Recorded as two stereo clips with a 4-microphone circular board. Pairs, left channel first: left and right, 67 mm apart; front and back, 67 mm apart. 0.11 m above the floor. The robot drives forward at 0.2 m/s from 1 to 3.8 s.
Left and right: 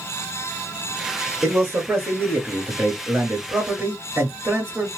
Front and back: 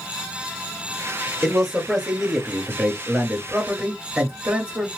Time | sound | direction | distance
1.4 | a man speaking | 95° right | 1.7 m